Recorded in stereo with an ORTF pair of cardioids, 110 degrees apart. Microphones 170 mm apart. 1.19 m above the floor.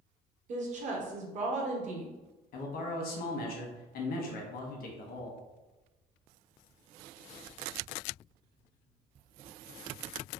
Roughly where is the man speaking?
Ahead left.